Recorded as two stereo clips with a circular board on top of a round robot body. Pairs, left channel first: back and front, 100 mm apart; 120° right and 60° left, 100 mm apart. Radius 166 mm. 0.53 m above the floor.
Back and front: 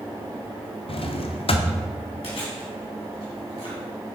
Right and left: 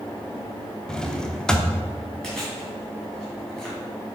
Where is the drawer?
155° left, 0.7 m.